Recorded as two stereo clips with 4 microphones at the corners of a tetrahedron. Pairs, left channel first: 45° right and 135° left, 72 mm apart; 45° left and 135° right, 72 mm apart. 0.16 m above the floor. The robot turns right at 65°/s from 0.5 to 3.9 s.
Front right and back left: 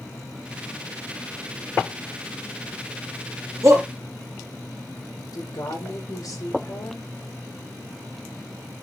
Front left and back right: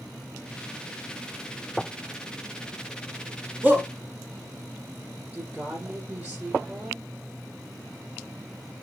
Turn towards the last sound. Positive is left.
turn(degrees=-65)